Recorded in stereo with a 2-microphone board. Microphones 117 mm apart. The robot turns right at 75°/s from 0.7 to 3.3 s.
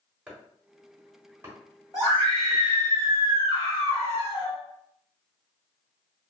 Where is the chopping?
10° right (ahead or behind), 1.0 m; by 2.6 s 5° right (ahead or behind), 1.0 m.